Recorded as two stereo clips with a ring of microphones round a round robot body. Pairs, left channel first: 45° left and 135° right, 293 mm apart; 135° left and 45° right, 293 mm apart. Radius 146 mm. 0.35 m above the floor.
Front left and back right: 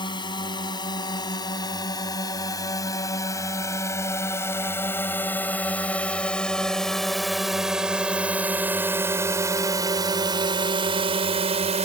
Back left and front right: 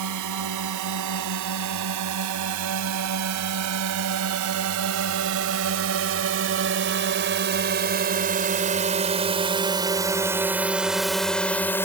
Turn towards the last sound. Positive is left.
turn(degrees=-155)